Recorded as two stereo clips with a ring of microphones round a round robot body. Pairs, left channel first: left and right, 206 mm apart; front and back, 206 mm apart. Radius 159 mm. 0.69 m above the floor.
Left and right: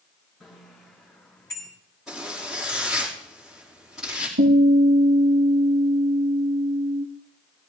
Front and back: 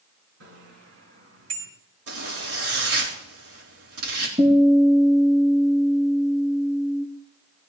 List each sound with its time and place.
0.4 s a bicycle bell: 175° left, 5.5 m; by 1.7 s 170° left, 4.5 m
2.1 s a zipper: straight behind, 5.5 m
4.4 s a guitar: 115° right, 5 m